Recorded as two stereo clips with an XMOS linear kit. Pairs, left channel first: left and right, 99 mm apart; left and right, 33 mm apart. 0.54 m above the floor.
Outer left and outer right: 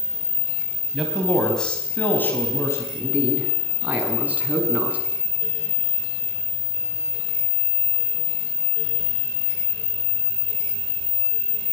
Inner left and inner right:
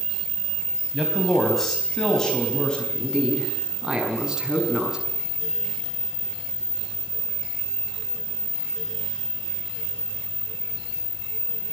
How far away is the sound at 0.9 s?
About 4 m.